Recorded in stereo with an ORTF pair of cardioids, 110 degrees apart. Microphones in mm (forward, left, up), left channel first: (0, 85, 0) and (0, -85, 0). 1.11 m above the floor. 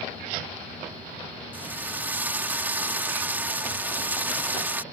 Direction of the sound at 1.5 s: 10° right.